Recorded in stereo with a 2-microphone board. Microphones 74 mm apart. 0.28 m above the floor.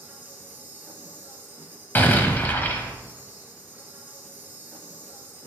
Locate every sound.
0.0 s an insect: 25° right (ahead or behind), 1.7 m
1.9 s an explosion: 25° left (ahead or behind), 1.1 m